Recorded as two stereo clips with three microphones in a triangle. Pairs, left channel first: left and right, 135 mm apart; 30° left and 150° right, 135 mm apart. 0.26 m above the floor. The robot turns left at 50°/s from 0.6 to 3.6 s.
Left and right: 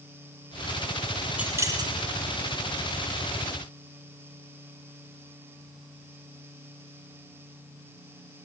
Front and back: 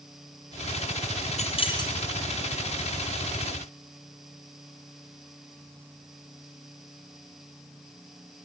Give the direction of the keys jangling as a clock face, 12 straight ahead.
12 o'clock.